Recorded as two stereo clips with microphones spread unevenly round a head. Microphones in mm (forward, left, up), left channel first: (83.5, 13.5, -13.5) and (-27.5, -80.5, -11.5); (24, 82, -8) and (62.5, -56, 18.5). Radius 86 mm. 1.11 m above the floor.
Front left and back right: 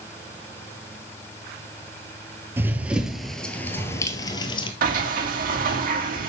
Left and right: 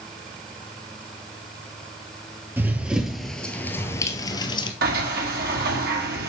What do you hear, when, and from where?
2.6 s running footsteps: 90° right, 1.1 m; by 4.7 s 60° left, 1.2 m
4.8 s a sliding door: 115° right, 1.5 m